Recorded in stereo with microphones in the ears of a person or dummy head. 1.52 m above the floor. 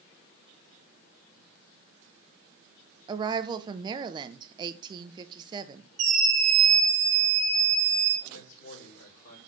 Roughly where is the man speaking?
Left.